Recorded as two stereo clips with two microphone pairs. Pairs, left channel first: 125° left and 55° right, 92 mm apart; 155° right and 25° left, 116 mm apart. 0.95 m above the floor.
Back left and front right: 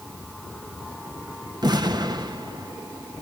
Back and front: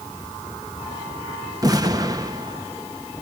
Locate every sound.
1.6 s an explosion: 25° right, 1.2 m